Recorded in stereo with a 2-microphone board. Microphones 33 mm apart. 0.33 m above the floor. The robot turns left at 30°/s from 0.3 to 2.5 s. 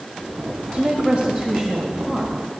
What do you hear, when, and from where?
0.7 s a woman speaking: 120° right, 1.4 m; by 2.3 s 170° right, 1.4 m